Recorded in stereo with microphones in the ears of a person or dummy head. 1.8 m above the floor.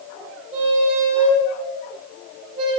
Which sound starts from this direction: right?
A squeak, at 0.5 s.